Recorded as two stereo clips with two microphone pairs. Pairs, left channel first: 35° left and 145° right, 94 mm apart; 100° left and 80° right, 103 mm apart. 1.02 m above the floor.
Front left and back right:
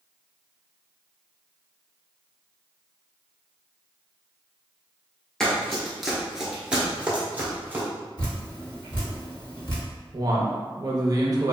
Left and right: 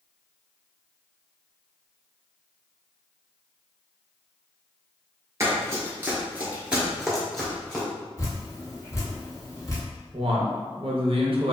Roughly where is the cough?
No cough in this recording.